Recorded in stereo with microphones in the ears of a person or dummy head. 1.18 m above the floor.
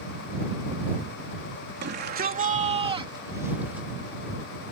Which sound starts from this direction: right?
A shout, at 1.8 s.